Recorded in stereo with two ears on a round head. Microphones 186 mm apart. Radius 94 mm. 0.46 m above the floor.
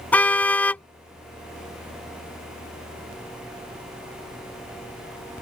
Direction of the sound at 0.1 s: 5° left (ahead or behind).